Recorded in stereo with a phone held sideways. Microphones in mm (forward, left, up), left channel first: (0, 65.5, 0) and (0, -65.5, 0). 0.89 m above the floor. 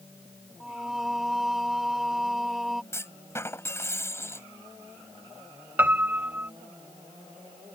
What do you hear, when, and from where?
0.6 s singing: centre (ahead or behind)
2.9 s a clunk: 20° left (ahead or behind)
5.8 s a piano: 15° right (ahead or behind)